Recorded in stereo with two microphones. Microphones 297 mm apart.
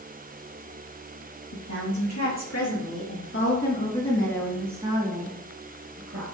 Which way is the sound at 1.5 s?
70° left (ahead or behind).